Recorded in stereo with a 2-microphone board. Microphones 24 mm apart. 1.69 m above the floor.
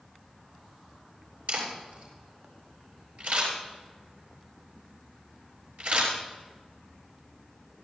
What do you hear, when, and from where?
1.5 s a camera shutter: 75° right (ahead or behind), 8 m